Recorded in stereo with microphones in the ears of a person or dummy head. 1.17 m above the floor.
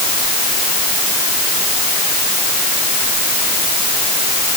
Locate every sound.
Only background noise.